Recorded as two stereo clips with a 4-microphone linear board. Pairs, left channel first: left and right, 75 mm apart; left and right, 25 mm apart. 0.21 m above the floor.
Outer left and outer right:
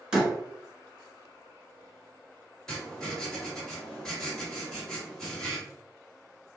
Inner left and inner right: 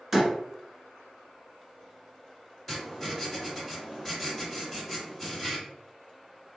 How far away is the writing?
About 1.9 m.